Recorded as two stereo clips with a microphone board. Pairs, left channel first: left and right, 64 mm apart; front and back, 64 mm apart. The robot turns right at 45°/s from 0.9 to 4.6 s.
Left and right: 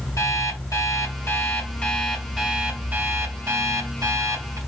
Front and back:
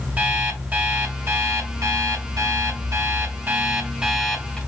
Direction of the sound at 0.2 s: 115° left.